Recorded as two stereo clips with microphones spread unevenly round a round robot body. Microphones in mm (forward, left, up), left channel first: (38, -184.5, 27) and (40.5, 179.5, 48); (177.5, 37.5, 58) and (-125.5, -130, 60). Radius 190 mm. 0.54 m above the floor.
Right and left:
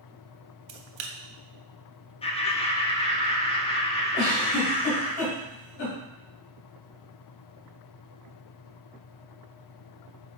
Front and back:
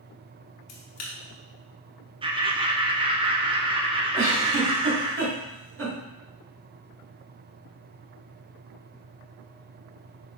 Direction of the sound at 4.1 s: 95° right.